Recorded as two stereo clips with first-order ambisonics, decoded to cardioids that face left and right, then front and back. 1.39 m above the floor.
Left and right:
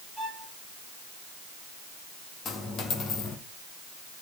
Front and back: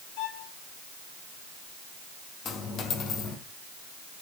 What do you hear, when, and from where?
0.2 s a violin: 10° right, 5.5 m
2.5 s a dropped coin: 45° left, 2.0 m